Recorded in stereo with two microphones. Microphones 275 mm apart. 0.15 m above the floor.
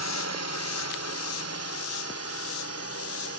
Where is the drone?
65° left (ahead or behind); by 3.4 s 55° left (ahead or behind).